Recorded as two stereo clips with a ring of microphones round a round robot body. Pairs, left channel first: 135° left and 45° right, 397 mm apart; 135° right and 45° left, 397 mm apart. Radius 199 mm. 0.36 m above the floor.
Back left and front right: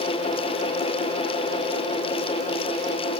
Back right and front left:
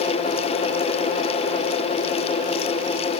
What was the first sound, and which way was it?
Only background noise.